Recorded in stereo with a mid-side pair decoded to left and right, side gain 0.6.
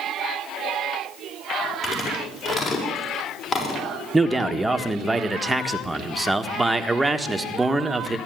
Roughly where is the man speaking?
Ahead.